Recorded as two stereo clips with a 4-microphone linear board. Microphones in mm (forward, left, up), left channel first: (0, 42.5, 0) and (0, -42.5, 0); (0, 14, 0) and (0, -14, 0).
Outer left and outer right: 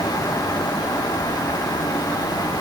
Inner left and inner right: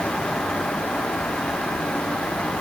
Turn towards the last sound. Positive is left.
No sound to turn to.